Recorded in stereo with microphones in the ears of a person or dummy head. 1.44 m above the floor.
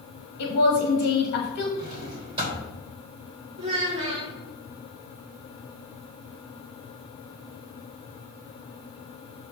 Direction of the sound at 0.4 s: 60° left (ahead or behind).